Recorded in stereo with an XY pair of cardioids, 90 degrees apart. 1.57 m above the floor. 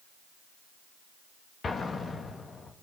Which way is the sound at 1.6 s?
45° left.